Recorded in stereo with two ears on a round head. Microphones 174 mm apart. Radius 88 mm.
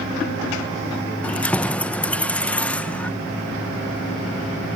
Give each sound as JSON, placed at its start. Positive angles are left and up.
{"t": 1.2, "sound": "keys jangling", "side_deg": 5, "distance_m": 0.6}